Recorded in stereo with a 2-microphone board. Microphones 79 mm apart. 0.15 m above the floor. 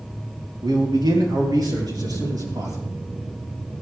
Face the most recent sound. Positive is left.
turn(degrees=-50)  # may be behind; listen again after turning